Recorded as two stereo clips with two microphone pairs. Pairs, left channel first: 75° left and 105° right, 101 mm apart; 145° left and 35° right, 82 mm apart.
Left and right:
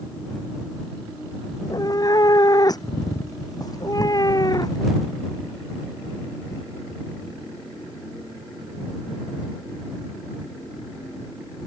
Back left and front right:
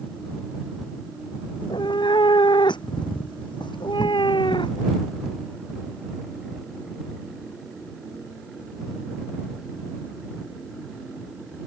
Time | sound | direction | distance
1.6 | a cat meowing | 125° left | ?